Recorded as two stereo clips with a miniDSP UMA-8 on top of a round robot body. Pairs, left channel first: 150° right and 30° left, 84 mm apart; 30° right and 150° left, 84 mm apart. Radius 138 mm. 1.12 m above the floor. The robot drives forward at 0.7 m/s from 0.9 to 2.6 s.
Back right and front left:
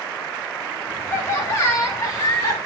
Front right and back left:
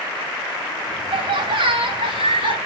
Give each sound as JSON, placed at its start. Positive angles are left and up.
{"t": 1.1, "sound": "laughter", "azimuth_deg": 150, "distance_m": 3.0}